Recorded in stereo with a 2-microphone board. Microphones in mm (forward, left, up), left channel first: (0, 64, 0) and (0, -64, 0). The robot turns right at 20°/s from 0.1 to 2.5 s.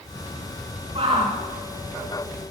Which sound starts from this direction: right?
A shout, at 0.9 s.